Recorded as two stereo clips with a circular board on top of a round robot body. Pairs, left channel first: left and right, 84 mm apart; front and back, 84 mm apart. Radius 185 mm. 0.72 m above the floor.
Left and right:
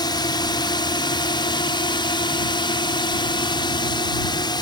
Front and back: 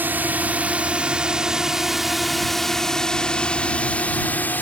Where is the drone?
115° left; by 4.6 s 65° left.